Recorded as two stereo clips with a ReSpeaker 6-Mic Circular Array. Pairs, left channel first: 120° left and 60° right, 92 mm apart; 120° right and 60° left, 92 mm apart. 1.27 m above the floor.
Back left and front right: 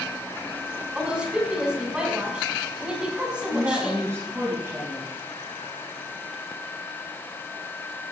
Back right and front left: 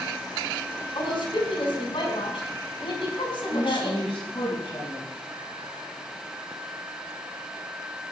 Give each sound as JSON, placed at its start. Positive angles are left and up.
{"t": 0.9, "sound": "a woman speaking", "azimuth_deg": -140, "distance_m": 6.5}
{"t": 3.5, "sound": "a woman speaking", "azimuth_deg": -125, "distance_m": 8.0}